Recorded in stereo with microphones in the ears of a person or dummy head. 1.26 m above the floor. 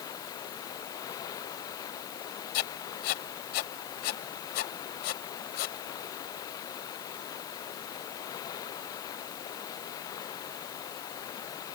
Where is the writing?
55° left (ahead or behind).